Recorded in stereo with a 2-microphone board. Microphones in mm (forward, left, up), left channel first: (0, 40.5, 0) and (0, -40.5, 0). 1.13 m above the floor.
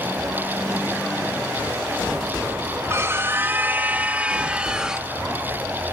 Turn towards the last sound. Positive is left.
turn(degrees=-10)  # may be behind; listen again after turning